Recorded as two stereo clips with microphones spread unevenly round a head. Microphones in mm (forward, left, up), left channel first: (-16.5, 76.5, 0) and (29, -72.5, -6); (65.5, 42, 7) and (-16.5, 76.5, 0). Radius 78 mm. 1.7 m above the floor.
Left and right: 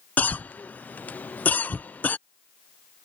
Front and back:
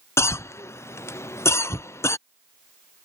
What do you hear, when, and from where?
0.2 s a cough: 30° left